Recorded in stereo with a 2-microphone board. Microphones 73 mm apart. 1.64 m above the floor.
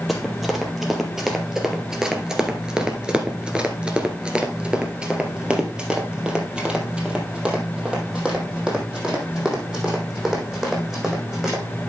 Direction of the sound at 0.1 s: Centre (ahead or behind).